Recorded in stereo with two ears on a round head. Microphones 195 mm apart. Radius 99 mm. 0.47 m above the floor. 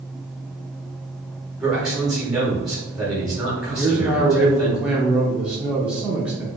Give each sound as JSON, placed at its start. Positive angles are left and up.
{"t": 1.6, "sound": "a man speaking", "side_deg": 0, "distance_m": 1.7}
{"t": 3.8, "sound": "a man speaking", "side_deg": -5, "distance_m": 0.7}